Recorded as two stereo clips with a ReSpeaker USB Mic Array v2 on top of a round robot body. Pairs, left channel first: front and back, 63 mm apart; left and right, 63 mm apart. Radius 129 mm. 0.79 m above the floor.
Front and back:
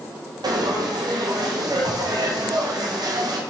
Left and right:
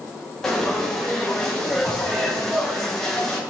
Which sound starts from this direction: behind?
Frying, at 0.4 s.